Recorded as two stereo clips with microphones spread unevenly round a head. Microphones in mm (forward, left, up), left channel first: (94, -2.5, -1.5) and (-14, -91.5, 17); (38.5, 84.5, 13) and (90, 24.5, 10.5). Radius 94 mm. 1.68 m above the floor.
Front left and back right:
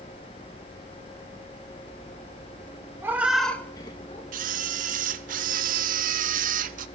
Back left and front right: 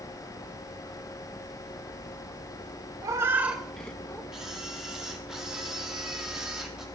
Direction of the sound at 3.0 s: 85° right.